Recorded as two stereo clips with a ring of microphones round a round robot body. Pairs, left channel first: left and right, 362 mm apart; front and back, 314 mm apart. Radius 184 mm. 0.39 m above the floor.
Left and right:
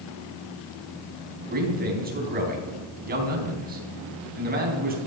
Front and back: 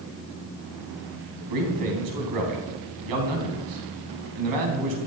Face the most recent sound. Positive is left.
turn(degrees=-155)